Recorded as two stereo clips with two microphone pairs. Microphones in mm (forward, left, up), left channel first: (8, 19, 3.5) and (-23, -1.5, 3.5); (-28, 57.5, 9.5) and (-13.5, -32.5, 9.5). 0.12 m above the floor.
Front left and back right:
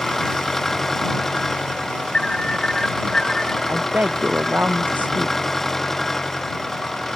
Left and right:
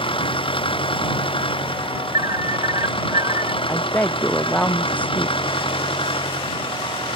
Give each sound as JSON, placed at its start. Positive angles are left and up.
{"t": 0.0, "sound": "an engine running", "azimuth_deg": 115}
{"t": 2.1, "sound": "an alarm", "azimuth_deg": -40}
{"t": 3.7, "sound": "a woman speaking", "azimuth_deg": 175}